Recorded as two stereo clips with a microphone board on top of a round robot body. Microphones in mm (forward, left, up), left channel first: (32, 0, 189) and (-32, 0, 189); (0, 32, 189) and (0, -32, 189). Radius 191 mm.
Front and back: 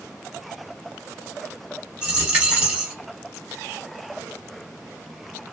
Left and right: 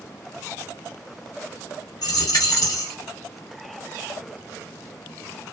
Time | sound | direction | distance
2.0 | a dropped coin | 105° left | 0.9 m